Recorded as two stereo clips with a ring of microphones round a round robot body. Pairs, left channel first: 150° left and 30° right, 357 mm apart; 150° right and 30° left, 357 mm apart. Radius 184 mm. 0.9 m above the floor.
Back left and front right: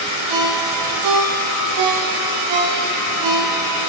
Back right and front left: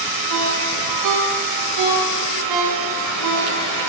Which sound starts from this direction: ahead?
A ringtone, at 0.3 s.